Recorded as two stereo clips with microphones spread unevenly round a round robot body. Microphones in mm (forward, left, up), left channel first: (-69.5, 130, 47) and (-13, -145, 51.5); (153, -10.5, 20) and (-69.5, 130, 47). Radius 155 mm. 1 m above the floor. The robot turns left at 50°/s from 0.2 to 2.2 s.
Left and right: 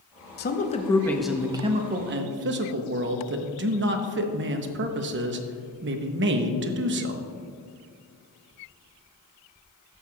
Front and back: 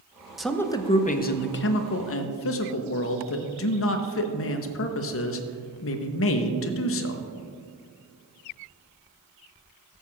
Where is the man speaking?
55° left, 0.8 m; by 7.3 s 35° right, 0.8 m.